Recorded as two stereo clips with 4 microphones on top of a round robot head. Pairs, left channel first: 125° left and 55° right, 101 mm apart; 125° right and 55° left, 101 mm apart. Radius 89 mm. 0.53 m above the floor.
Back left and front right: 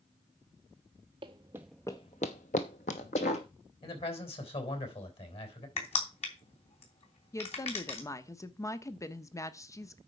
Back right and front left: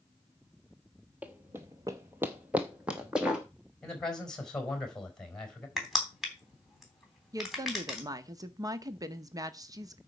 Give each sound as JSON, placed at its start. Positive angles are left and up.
{"t": 1.2, "sound": "running footsteps", "azimuth_deg": -20, "distance_m": 0.7}
{"t": 3.8, "sound": "a man speaking", "azimuth_deg": 150, "distance_m": 4.0}
{"t": 5.8, "sound": "crushing", "azimuth_deg": 145, "distance_m": 3.0}
{"t": 7.3, "sound": "a woman speaking", "azimuth_deg": 85, "distance_m": 0.9}